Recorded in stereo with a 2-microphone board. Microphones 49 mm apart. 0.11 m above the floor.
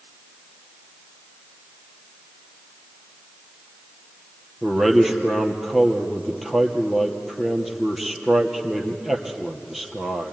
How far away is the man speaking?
About 2.5 m.